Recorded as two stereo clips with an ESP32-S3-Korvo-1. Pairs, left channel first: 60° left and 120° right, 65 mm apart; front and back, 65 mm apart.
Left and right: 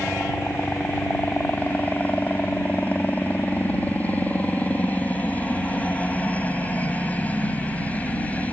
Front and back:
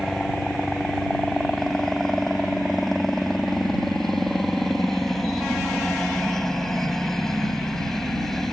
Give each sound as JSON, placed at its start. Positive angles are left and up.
{"t": 0.0, "sound": "a helicopter", "azimuth_deg": 80}